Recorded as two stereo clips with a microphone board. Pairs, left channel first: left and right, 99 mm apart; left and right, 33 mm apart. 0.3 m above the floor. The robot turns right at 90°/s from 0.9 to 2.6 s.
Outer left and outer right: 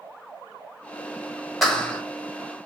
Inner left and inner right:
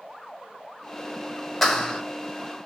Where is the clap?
Straight ahead, 1.2 m; by 2.0 s 40° left, 1.2 m.